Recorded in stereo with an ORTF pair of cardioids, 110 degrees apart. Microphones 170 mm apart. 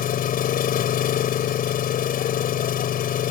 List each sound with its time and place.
0.0 s an engine running: 60° left